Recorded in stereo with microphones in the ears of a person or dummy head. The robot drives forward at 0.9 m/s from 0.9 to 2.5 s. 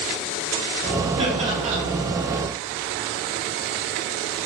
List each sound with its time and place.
1.2 s laughter: 35° right (ahead or behind), 5 m; by 1.8 s 40° right (ahead or behind), 4.5 m